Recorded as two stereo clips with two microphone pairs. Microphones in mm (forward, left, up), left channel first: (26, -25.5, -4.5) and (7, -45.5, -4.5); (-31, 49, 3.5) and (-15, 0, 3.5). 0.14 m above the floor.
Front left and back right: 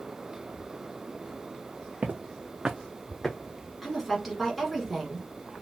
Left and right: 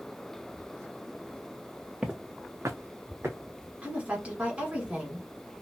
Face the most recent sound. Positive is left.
turn(degrees=-45)